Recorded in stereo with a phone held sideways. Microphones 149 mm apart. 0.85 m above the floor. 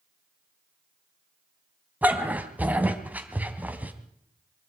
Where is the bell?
No bell in this recording.